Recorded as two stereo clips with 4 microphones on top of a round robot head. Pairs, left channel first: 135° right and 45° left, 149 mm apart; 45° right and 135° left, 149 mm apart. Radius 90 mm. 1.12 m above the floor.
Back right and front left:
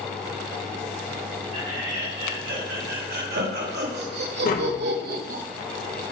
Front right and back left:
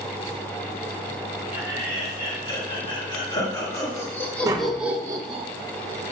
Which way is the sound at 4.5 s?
155° right.